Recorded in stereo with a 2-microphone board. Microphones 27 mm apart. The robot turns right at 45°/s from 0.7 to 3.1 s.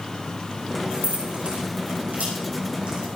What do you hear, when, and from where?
0.9 s keys jangling: 45° right (ahead or behind), 6 m; by 3.1 s 35° right (ahead or behind), 6 m